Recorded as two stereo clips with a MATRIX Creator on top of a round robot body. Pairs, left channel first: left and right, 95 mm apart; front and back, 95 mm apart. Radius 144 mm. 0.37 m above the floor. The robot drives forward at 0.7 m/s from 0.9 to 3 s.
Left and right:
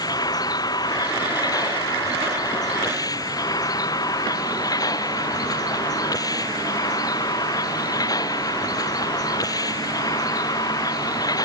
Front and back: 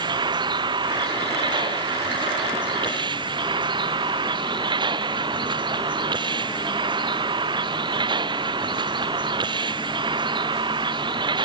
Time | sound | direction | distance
0.0 | a vehicle | 140° left | ?